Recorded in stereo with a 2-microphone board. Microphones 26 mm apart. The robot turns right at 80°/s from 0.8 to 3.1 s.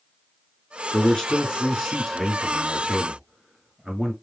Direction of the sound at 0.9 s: 20° left (ahead or behind).